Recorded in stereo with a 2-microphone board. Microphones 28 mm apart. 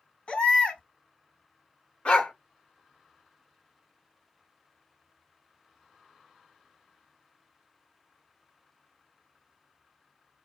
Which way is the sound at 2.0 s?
50° left (ahead or behind).